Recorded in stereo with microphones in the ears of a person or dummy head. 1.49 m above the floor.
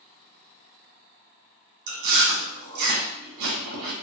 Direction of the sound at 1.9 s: 70° right (ahead or behind).